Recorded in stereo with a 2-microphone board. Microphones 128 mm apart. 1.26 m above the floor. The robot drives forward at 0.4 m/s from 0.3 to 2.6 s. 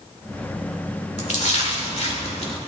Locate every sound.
1.2 s a splash: 60° left (ahead or behind), 1.5 m; by 2.6 s 50° left (ahead or behind), 1.6 m